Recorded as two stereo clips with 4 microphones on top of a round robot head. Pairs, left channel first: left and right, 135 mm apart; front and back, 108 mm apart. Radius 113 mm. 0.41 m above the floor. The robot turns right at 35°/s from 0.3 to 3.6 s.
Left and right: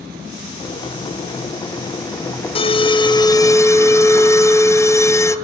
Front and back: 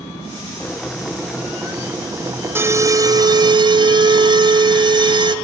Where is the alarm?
115° left, 0.5 m; by 5.4 s 155° left, 0.5 m.